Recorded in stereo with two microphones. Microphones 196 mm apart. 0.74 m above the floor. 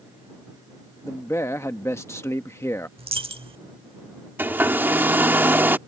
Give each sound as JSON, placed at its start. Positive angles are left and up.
{"t": 1.0, "sound": "a man speaking", "side_deg": 15}
{"t": 3.0, "sound": "a dropped coin", "side_deg": -30}
{"t": 4.4, "sound": "a hair dryer", "side_deg": -10}